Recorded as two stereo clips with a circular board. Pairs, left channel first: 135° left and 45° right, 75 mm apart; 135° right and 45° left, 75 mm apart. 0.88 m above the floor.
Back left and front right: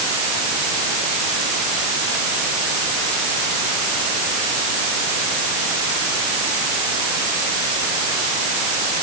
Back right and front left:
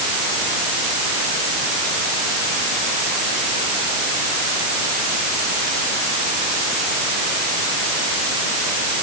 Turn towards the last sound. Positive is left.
No sound to turn to.